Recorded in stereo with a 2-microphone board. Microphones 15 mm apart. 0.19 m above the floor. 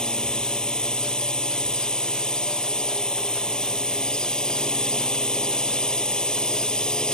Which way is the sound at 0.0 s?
70° left (ahead or behind).